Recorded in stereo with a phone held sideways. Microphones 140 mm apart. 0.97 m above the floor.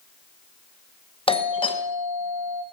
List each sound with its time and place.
1.3 s a doorbell: 35° left (ahead or behind), 1.2 m